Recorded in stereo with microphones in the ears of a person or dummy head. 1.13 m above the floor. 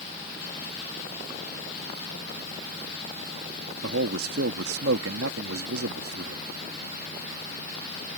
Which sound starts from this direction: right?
A man speaking, at 3.8 s.